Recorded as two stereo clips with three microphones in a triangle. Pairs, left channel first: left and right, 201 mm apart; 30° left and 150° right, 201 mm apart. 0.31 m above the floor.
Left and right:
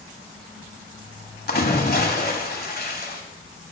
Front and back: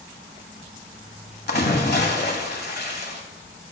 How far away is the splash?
About 1.1 m.